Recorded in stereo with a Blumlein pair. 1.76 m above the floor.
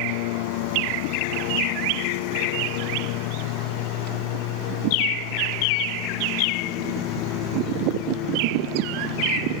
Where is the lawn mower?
50° left; by 9.6 s 35° left.